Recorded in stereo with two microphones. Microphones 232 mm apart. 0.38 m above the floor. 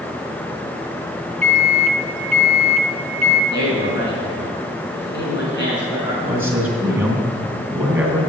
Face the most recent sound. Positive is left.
turn(degrees=-10)  # may be behind; listen again after turning